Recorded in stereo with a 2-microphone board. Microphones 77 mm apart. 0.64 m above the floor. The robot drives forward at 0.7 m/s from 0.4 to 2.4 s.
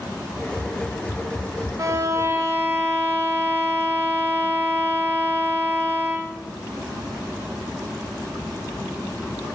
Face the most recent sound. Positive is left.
turn(degrees=-30)  # may be behind; listen again after turning